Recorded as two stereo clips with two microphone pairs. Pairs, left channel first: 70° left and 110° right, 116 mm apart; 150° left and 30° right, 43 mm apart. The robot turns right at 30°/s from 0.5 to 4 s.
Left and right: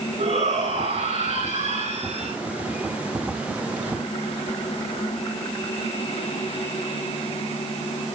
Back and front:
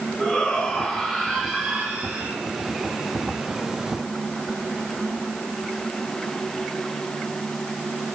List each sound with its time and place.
0.2 s a shout: 135° right, 9 m; by 2.4 s 75° right, 9 m